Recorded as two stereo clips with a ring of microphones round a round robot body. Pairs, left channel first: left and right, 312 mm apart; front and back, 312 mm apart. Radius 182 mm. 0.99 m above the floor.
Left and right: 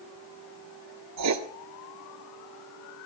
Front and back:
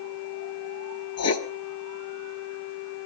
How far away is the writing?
About 1.3 m.